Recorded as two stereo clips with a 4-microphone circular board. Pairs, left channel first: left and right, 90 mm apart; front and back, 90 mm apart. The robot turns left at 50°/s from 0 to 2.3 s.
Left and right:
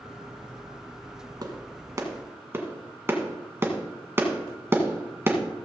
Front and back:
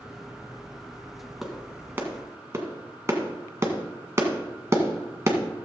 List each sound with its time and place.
1.4 s a clap: 95° right, 1.5 m; by 5.4 s 140° right, 1.5 m